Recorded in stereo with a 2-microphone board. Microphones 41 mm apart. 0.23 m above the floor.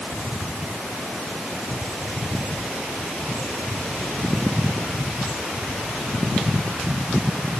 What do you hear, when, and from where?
Only background noise.